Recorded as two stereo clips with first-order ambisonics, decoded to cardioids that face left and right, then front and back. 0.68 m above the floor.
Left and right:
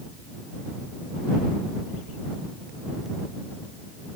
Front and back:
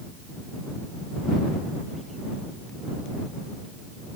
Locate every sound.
Only background noise.